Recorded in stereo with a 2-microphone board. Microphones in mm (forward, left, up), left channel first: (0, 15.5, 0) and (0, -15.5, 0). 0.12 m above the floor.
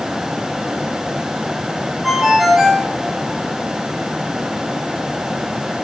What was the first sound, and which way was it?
A ringtone, 5° right (ahead or behind).